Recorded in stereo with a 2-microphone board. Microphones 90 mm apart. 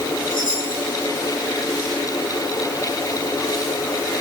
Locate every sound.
0.3 s a chime: 70° left (ahead or behind), 9.5 m